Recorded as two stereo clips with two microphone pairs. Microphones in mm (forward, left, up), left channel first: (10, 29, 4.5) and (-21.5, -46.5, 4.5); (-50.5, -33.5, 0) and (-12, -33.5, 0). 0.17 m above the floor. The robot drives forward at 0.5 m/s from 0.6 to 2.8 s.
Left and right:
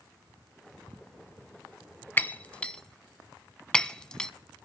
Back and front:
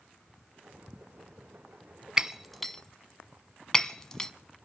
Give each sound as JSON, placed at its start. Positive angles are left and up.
{"t": 2.2, "sound": "breaking glass", "azimuth_deg": 50, "distance_m": 0.5}